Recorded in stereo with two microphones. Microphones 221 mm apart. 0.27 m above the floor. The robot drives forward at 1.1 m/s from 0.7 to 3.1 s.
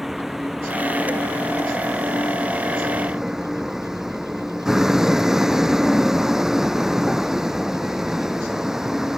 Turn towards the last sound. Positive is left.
turn(degrees=0)  # may be behind; listen again after turning